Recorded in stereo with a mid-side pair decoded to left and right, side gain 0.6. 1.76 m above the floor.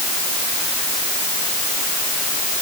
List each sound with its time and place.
Only background noise.